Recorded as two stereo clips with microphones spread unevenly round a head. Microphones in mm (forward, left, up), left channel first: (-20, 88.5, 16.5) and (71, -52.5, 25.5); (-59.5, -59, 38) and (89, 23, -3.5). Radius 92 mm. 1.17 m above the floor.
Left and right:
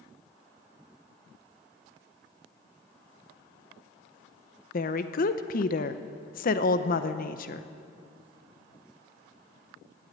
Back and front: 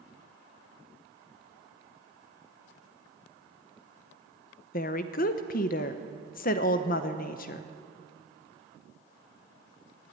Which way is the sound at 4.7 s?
160° left.